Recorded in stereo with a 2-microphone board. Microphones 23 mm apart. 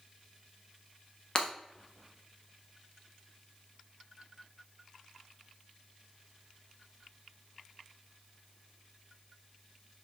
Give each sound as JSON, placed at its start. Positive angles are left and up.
{"t": 1.4, "sound": "breaking glass", "side_deg": 30, "distance_m": 0.9}